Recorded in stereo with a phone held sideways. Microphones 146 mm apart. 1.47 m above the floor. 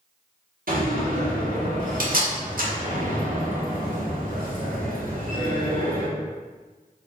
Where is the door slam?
75° right (ahead or behind), 1.1 m.